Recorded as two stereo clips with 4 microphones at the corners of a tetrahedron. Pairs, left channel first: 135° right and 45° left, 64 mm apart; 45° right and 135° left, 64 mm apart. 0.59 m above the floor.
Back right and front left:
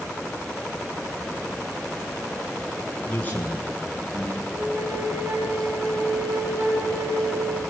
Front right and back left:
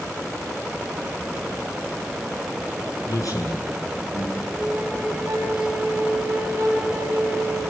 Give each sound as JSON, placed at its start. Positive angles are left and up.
{"t": 3.0, "sound": "a man speaking", "azimuth_deg": -70, "distance_m": 9.5}
{"t": 4.5, "sound": "a flute", "azimuth_deg": 80, "distance_m": 5.5}